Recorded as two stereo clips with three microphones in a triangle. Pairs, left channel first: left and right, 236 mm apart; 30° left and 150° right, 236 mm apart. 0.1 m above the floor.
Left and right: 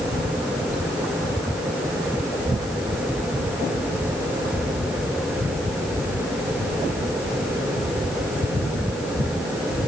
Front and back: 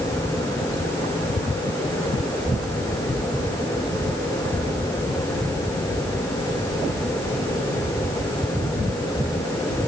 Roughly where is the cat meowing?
No cat meowing in this recording.